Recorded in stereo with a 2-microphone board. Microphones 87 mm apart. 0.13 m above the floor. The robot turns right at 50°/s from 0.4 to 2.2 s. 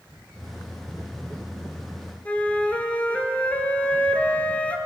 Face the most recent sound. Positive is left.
turn(degrees=15)  # may be behind; listen again after turning